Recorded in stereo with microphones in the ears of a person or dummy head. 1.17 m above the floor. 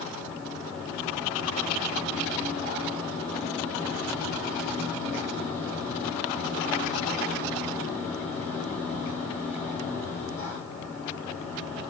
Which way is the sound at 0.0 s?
35° left (ahead or behind).